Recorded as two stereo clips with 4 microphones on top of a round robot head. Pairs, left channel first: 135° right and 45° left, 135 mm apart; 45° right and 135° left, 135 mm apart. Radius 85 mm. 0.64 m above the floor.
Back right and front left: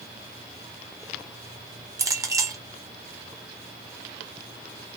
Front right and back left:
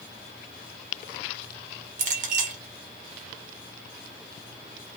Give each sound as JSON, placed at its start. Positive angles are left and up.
{"t": 2.0, "sound": "a clink", "azimuth_deg": 110, "distance_m": 0.9}